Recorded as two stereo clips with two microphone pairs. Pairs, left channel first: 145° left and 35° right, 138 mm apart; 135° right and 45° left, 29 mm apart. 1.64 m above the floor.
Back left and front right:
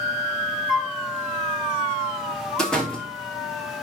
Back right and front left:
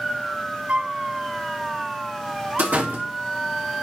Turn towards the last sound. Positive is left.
turn(degrees=60)